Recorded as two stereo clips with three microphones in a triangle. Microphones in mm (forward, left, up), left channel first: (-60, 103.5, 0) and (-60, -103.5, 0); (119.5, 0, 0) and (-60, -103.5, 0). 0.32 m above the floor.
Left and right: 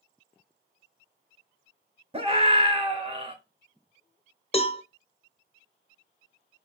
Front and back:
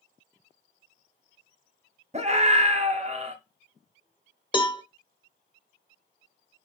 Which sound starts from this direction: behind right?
A scream, at 2.1 s.